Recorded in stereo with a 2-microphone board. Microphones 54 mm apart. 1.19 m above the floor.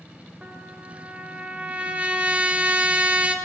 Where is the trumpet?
25° right (ahead or behind), 2.5 m.